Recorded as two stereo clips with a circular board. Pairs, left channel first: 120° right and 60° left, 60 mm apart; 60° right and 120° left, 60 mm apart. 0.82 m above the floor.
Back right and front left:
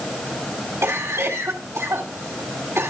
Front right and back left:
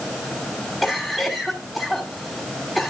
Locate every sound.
0.8 s a cough: 20° left, 1.9 m